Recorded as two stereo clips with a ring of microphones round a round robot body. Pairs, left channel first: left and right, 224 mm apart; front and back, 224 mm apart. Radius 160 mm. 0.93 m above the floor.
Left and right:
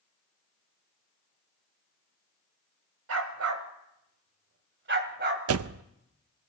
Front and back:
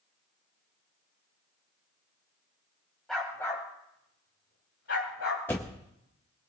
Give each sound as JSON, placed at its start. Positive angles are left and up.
{"t": 3.1, "sound": "a dog barking", "azimuth_deg": -90, "distance_m": 1.7}
{"t": 5.5, "sound": "a door slam", "azimuth_deg": -85, "distance_m": 0.5}